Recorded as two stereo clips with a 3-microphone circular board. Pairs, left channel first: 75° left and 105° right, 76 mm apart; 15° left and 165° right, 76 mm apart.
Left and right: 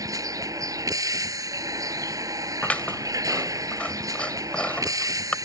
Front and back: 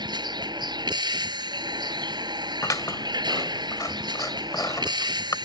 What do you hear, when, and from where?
0.0 s a vehicle: 145° right
2.6 s scissors: 10° left